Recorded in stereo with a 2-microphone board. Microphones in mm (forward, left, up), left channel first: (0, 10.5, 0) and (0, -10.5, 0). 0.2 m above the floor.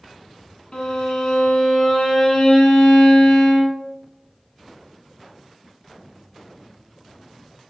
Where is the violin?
45° left (ahead or behind), 0.7 m.